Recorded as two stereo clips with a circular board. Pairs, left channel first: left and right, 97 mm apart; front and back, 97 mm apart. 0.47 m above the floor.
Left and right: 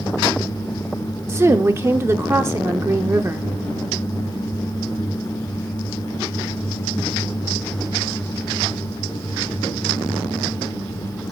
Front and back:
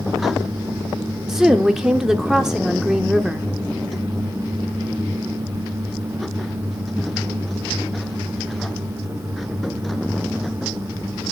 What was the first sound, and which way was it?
A woman speaking, 100° right.